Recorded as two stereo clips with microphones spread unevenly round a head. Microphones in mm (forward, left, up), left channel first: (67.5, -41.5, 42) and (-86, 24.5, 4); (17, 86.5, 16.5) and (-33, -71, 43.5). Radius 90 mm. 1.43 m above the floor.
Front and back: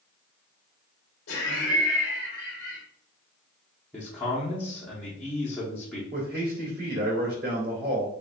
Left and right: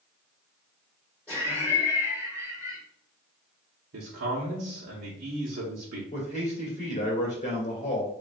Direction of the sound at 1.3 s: 10° right.